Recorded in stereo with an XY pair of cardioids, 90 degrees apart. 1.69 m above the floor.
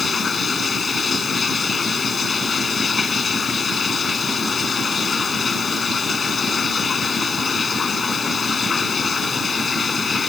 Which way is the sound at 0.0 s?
45° left.